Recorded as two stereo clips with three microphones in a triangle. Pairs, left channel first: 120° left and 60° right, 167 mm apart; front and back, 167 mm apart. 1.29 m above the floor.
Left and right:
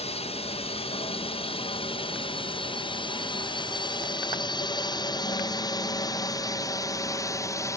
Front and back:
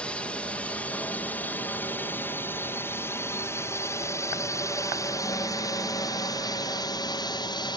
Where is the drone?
80° left; by 7.8 s 55° left.